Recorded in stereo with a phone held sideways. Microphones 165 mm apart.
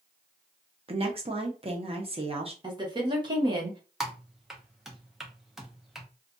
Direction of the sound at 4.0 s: Centre (ahead or behind).